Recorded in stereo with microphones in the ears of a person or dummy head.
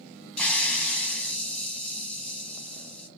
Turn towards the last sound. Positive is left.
turn(degrees=10)  # may be behind; listen again after turning